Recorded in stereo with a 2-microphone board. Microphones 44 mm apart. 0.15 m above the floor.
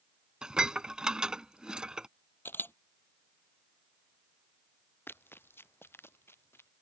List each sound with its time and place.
0.4 s dishes clattering: 20° right (ahead or behind)
2.5 s a camera shutter: 55° left (ahead or behind)
5.1 s running footsteps: 55° left (ahead or behind); by 6.7 s 65° left (ahead or behind)